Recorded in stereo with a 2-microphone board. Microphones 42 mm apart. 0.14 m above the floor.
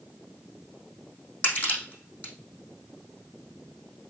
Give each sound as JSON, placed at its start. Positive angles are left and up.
{"t": 1.4, "sound": "crushing", "side_deg": 35, "distance_m": 5.0}